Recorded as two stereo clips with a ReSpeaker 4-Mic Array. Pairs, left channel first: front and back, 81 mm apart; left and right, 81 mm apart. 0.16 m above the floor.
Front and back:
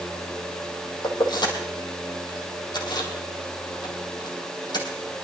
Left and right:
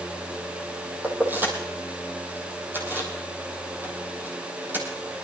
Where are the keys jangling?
25° right, 3.5 m.